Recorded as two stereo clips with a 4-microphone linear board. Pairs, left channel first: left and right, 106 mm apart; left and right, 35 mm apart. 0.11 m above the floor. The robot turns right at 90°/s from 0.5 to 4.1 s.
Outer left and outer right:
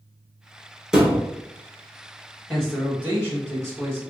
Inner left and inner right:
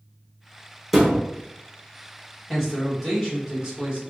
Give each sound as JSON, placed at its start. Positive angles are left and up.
{"t": 0.9, "sound": "a thud", "side_deg": -5, "distance_m": 0.9}
{"t": 2.5, "sound": "a man speaking", "side_deg": 10, "distance_m": 1.8}